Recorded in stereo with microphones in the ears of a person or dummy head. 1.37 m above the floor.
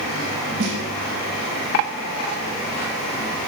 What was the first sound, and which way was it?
A snare drum, 65° right (ahead or behind).